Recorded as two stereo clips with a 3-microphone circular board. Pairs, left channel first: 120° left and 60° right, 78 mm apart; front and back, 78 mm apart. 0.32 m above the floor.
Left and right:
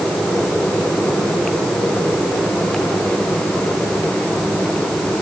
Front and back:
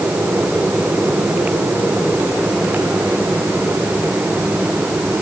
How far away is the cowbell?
I don't hear a cowbell.